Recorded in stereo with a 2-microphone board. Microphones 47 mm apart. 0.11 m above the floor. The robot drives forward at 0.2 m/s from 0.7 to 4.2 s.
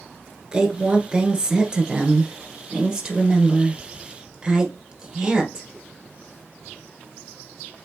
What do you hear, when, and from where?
0.5 s a woman speaking: 15° right (ahead or behind), 1.4 m; by 5.7 s 10° right (ahead or behind), 1.9 m